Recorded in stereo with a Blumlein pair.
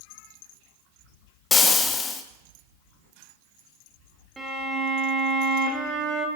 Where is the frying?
15° left, 1.1 m.